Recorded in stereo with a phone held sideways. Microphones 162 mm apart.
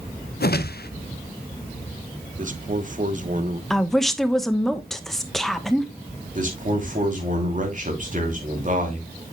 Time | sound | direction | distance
0.4 | a whoosh | 75° left (ahead or behind) | 0.5 m
2.4 | a man speaking | 50° right (ahead or behind) | 1.0 m
3.7 | a woman speaking | centre (ahead or behind) | 1.0 m
6.3 | a man speaking | 55° right (ahead or behind) | 3 m